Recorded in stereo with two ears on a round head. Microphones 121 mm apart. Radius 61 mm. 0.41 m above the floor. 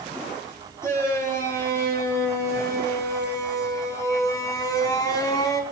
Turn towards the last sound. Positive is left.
turn(degrees=25)  # may be behind; listen again after turning